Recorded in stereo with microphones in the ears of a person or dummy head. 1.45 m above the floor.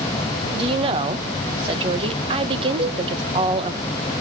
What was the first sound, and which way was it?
A woman speaking, 30° right (ahead or behind).